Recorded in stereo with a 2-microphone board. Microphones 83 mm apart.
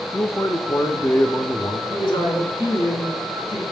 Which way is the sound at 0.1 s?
30° left (ahead or behind).